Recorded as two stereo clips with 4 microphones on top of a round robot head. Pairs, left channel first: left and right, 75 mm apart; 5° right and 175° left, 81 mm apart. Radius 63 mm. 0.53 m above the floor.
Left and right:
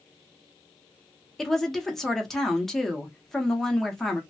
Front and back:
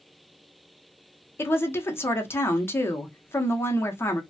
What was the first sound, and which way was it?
A woman speaking, 5° left.